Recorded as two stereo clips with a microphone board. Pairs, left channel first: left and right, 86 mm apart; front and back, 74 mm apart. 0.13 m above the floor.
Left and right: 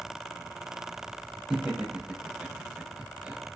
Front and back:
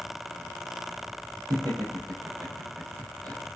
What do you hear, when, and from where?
1.5 s laughter: 170° right, 6.5 m; by 3.4 s 160° right, 6 m